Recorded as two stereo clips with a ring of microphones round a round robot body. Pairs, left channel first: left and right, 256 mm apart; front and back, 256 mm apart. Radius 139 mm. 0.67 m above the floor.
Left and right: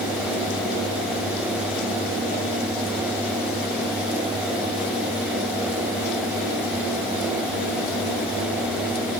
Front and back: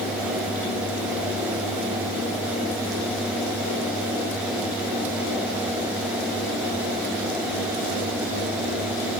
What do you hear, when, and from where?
Only background noise.